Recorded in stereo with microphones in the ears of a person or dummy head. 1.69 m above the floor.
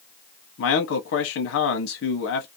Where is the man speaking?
75° left (ahead or behind), 0.7 m.